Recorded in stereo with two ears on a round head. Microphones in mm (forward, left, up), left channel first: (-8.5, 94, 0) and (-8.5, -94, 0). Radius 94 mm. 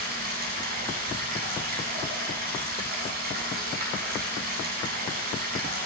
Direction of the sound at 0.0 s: 45° right (ahead or behind).